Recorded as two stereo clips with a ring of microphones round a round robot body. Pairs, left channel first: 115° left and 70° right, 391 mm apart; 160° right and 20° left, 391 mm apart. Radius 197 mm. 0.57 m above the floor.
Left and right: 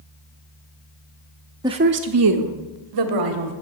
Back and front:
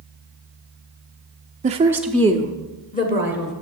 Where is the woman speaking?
Straight ahead, 0.6 m; by 3.5 s 95° right, 1.6 m.